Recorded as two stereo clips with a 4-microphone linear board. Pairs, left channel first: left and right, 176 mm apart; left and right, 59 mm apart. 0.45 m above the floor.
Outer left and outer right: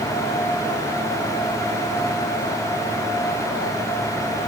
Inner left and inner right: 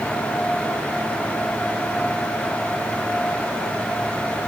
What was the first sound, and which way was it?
Only background noise.